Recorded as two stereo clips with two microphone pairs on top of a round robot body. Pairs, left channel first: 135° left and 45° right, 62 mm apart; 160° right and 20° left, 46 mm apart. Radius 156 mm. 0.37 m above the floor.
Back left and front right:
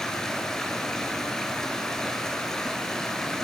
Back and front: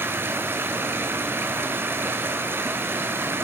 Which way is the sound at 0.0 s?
55° left.